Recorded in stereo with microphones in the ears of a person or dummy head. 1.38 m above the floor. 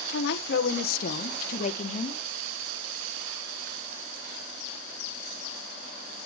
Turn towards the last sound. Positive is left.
turn(degrees=35)  # may be behind; listen again after turning